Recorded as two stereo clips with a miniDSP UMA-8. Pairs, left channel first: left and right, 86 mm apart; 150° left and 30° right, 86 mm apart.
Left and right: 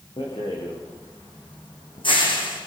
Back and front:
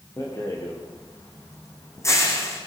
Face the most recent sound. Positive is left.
turn(degrees=95)